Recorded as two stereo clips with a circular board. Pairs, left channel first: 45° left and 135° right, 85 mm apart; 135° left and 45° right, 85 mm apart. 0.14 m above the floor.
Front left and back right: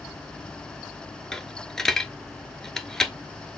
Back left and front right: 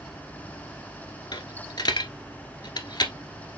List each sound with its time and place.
1.3 s a dropped coin: 125° left, 1.1 m